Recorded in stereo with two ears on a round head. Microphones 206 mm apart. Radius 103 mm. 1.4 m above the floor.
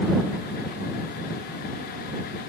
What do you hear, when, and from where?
Only background noise.